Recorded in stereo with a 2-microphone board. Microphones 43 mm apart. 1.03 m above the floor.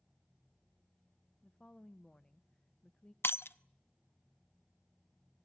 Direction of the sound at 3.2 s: 60° left (ahead or behind).